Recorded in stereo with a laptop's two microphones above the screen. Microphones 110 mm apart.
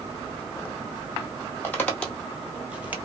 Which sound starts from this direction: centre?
Footsteps, at 1.6 s.